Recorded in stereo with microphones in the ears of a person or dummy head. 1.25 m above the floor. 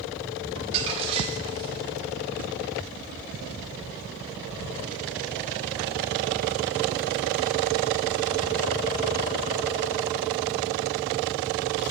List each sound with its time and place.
0.6 s crumpling: 30° right (ahead or behind), 1.3 m